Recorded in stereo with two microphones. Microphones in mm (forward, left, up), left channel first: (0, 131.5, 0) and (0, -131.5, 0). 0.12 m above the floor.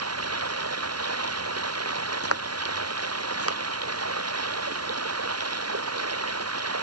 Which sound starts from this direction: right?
Running water, at 0.0 s.